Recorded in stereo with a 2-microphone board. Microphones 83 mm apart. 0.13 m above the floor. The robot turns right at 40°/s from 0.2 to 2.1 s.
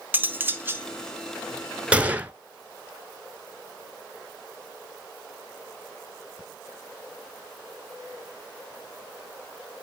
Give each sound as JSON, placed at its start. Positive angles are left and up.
{"t": 0.1, "sound": "cutlery clinking", "side_deg": -25, "distance_m": 0.8}
{"t": 1.9, "sound": "a gunshot", "side_deg": -15, "distance_m": 0.7}